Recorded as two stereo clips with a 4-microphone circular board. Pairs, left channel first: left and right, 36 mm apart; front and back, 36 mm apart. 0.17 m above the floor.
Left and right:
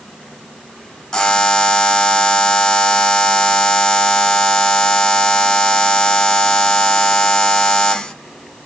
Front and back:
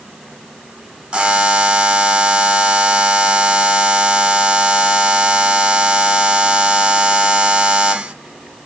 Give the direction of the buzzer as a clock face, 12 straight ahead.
7 o'clock.